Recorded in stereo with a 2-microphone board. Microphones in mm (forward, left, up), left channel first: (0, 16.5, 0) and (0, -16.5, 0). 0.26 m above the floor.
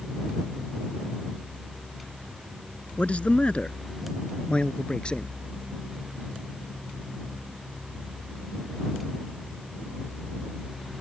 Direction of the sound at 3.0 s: 35° left (ahead or behind).